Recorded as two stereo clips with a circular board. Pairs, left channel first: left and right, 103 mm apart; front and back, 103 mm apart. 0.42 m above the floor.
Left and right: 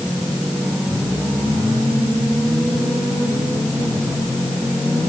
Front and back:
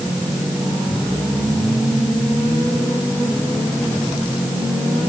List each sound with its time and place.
Only background noise.